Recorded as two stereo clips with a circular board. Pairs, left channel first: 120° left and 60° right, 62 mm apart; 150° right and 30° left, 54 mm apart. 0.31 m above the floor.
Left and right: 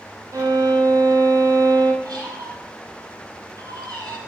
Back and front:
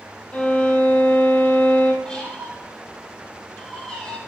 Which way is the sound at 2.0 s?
80° right.